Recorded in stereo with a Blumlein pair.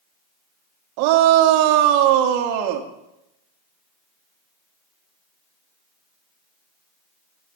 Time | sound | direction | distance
1.0 | a shout | 45° right | 2 m